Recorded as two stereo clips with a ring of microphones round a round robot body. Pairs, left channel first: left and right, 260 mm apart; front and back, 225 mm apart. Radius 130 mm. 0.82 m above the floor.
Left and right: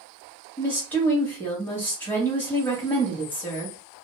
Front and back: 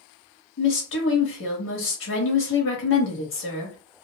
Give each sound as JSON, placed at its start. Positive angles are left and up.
{"t": 0.6, "sound": "a woman speaking", "azimuth_deg": 10, "distance_m": 1.3}